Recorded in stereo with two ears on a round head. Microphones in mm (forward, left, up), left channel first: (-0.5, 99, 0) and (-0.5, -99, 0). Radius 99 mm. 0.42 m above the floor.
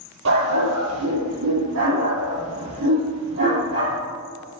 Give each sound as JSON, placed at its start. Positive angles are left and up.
{"t": 0.2, "sound": "a dog barking", "side_deg": -65, "distance_m": 5.5}